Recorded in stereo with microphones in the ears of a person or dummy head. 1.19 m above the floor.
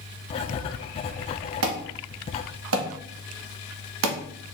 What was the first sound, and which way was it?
Writing, 25° left (ahead or behind).